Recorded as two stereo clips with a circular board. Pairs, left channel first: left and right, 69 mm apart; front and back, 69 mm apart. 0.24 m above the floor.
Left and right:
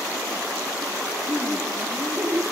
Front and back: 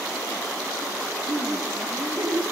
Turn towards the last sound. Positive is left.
turn(degrees=-170)